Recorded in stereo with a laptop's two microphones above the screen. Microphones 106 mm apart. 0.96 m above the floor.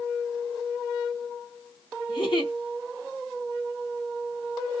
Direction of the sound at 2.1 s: 50° left (ahead or behind).